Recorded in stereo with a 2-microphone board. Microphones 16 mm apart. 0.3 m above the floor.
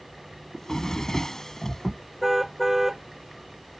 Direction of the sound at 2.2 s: 20° right (ahead or behind).